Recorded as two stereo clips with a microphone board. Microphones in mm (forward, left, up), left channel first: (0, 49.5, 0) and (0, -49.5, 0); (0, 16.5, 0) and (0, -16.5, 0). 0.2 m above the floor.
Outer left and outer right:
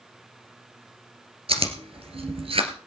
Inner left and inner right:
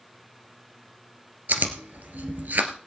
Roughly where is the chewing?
Right.